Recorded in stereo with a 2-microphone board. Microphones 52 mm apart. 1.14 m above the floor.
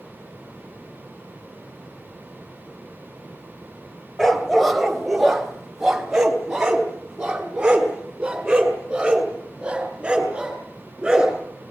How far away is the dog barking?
About 2 m.